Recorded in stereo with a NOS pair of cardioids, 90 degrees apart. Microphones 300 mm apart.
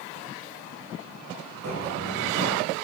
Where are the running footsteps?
60° right, 6 m.